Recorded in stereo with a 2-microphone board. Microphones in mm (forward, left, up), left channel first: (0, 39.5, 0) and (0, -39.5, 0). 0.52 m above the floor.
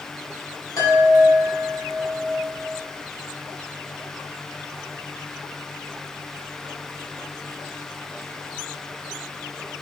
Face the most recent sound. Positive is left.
turn(degrees=45)  # may be behind; listen again after turning